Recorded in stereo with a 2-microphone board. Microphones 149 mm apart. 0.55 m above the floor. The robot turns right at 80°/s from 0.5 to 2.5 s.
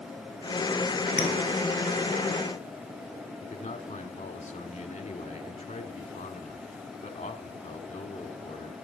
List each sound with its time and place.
1.2 s a clink: 55° left (ahead or behind), 7 m; by 1.3 s 45° left (ahead or behind), 7 m
3.4 s a man speaking: 50° left (ahead or behind), 1.3 m